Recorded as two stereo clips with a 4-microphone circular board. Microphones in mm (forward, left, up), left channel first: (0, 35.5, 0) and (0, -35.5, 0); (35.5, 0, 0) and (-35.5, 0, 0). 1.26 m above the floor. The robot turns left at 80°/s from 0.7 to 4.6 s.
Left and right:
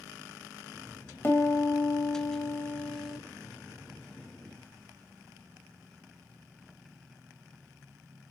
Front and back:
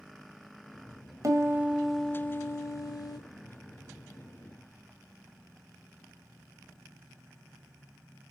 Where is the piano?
145° left, 1.8 m; by 3.2 s 10° right, 1.8 m.